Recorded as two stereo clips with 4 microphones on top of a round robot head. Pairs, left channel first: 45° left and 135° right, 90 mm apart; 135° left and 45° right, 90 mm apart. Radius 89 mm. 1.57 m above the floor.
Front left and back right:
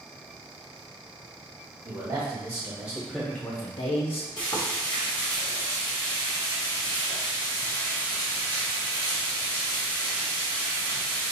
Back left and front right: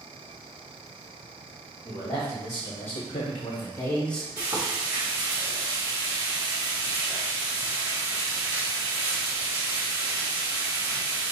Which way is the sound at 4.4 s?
10° left.